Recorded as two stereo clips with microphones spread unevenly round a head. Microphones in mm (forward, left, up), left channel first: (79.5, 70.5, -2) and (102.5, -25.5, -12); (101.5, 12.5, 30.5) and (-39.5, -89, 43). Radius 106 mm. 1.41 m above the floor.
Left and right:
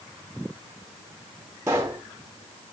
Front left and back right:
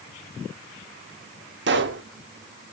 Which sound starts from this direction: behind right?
A pop, at 1.7 s.